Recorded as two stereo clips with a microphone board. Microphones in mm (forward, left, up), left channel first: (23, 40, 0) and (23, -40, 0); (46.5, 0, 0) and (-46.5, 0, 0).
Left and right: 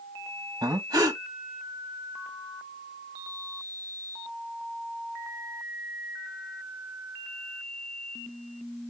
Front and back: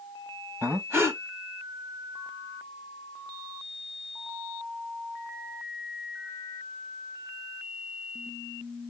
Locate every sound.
0.6 s breathing: 120° right, 1.1 m